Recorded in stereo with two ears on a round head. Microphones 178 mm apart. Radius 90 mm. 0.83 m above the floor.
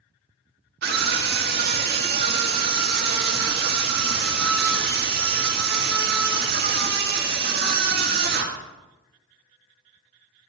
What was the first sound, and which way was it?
A scream, 50° right (ahead or behind).